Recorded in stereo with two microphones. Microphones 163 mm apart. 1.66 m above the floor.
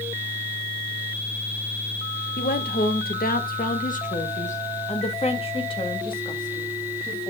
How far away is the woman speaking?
About 1.6 m.